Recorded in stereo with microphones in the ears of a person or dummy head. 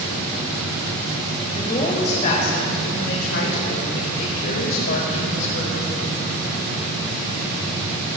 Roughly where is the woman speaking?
Left.